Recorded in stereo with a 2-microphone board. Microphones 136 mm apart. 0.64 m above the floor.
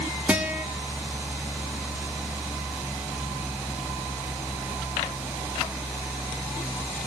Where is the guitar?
10° right (ahead or behind), 1.6 m.